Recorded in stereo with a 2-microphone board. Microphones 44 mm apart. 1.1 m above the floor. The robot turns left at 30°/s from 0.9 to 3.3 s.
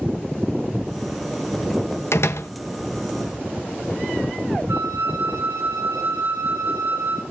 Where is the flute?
65° right (ahead or behind), 4.5 m.